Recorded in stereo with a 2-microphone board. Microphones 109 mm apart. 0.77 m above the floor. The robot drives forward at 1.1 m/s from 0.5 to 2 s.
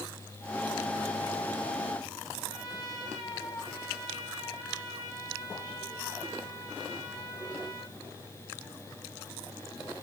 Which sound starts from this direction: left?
A trumpet, at 2.5 s.